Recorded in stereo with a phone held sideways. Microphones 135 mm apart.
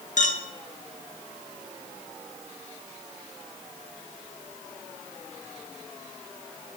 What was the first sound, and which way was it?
A clink, 65° left (ahead or behind).